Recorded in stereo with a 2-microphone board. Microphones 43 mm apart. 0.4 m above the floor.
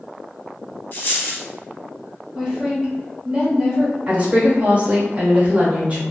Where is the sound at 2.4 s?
15° right (ahead or behind), 1.4 m.